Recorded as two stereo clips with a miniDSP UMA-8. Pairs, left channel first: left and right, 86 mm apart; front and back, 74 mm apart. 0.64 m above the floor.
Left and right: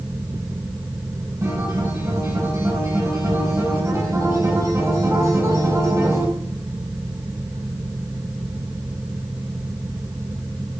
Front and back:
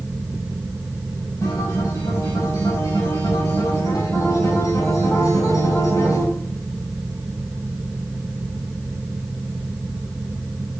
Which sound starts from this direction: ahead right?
A guitar, at 1.4 s.